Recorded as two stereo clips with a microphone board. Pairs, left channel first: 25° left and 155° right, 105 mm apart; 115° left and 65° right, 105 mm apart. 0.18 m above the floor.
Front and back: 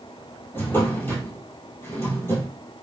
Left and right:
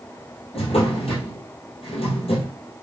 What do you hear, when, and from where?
0.5 s a drawer: 90° left, 1.6 m